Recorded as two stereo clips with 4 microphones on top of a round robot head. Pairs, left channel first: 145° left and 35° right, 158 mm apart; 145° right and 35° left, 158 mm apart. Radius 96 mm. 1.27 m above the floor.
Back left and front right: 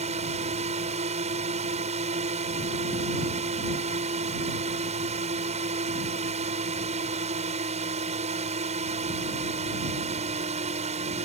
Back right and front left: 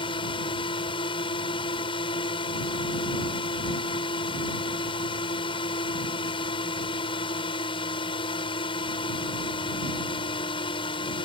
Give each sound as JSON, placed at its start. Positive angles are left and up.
{"t": 0.0, "sound": "a drone", "azimuth_deg": -85}